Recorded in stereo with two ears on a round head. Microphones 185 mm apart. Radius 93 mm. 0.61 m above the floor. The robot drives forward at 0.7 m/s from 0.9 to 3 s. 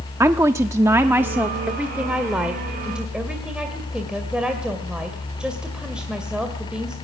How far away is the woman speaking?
About 0.7 m.